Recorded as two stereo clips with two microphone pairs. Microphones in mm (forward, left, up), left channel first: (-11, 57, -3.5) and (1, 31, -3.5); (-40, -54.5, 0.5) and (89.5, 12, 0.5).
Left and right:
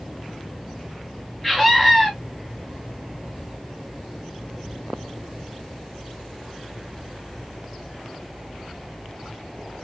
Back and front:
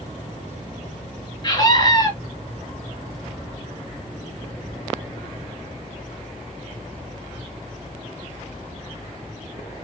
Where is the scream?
160° right, 1.7 m.